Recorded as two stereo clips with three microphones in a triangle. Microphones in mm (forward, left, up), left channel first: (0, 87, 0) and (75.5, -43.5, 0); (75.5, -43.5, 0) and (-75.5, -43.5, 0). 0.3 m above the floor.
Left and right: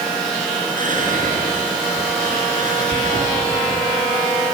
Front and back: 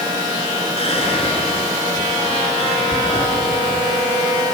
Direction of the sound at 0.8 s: 45° right.